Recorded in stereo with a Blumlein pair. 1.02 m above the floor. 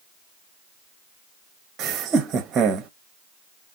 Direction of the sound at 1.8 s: 20° right.